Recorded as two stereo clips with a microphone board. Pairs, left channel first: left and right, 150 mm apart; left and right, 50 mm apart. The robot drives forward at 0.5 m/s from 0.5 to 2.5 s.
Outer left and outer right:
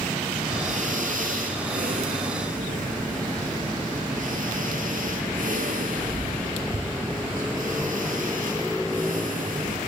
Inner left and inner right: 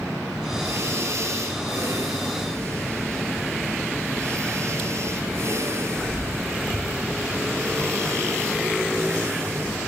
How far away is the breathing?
About 1.6 m.